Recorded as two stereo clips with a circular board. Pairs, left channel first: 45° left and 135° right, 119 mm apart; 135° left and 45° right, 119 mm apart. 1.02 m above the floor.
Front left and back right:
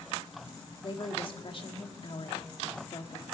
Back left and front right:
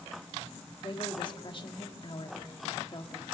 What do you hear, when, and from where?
0.8 s a woman speaking: 90° left, 1.7 m